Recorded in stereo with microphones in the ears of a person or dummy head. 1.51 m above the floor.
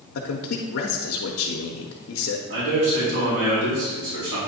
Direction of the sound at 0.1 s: 70° left (ahead or behind).